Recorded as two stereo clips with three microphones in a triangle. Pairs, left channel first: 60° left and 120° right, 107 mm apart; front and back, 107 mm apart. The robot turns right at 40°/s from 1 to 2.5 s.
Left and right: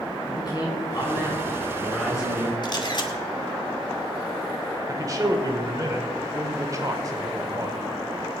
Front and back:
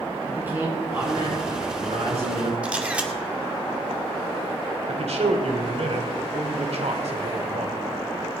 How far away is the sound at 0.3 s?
About 7 m.